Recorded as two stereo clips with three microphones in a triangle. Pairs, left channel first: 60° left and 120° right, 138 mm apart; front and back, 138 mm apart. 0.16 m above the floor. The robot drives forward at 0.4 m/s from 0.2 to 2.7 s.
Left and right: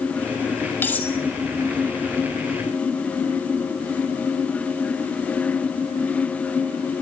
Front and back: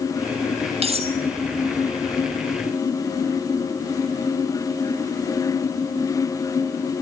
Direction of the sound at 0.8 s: 135° left.